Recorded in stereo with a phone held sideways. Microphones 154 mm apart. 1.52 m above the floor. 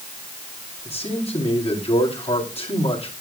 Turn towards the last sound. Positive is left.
turn(degrees=40)  # may be behind; listen again after turning